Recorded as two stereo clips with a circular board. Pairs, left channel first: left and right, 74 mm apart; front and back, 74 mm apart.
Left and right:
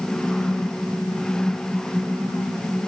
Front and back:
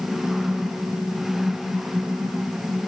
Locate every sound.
Only background noise.